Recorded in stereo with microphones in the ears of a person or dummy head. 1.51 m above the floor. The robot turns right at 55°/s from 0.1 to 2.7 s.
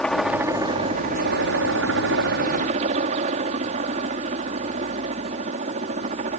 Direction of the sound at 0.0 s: 175° left.